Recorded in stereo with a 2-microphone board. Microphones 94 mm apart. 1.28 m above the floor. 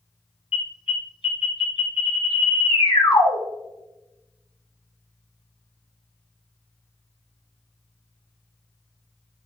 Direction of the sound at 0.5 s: 80° left.